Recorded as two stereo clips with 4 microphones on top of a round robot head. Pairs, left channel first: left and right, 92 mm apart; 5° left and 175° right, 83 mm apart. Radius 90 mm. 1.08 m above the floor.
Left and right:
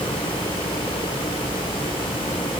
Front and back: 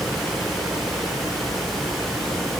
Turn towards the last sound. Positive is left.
No sound to turn to.